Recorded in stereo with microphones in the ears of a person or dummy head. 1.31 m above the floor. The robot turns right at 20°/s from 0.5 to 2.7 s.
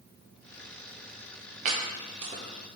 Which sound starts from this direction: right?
Chopping, at 1.6 s.